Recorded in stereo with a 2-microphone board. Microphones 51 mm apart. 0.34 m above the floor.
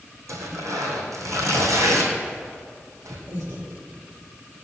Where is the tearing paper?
85° right, 2.5 m.